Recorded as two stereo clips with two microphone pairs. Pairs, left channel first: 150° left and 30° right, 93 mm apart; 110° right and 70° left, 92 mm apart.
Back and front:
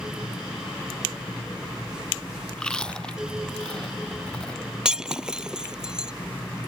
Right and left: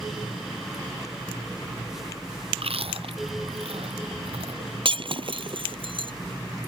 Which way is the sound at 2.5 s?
65° left.